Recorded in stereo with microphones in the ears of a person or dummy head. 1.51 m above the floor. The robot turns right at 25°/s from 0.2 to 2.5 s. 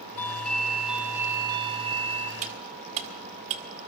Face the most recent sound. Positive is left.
turn(degrees=-35)  # may be behind; listen again after turning